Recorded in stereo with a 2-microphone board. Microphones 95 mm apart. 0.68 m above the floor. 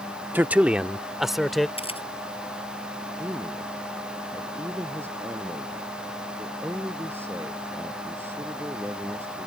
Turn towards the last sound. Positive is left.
turn(degrees=-25)  # may be behind; listen again after turning